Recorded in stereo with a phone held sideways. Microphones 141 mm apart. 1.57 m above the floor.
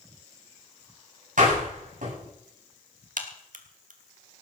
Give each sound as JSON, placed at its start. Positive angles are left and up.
{"t": 1.4, "sound": "a door slam", "side_deg": -70, "distance_m": 9.5}
{"t": 3.2, "sound": "a crack", "side_deg": -70, "distance_m": 2.0}